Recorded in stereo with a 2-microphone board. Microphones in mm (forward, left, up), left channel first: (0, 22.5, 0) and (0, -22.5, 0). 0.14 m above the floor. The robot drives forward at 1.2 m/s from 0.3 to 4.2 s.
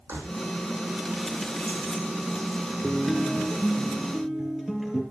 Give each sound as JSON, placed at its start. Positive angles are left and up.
{"t": 0.1, "sound": "keys jangling", "side_deg": -80, "distance_m": 4.0}
{"t": 2.8, "sound": "a guitar", "side_deg": -15, "distance_m": 1.1}